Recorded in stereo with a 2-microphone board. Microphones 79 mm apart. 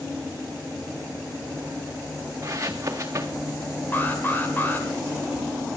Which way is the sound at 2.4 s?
35° right (ahead or behind).